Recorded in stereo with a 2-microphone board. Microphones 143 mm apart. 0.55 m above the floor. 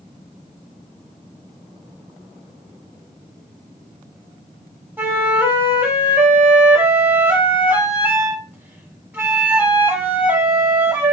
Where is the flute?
15° right (ahead or behind), 0.9 m.